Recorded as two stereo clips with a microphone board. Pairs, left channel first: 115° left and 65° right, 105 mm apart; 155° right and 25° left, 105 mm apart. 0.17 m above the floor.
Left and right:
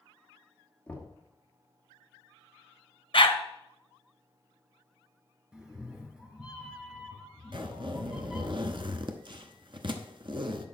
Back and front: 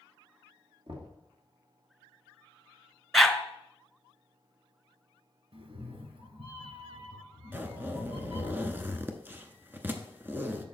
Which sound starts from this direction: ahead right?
A zipper, at 7.5 s.